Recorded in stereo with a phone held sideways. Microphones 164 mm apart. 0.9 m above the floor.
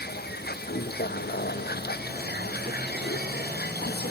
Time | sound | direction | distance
0.0 | a vehicle | 75° left (ahead or behind) | ?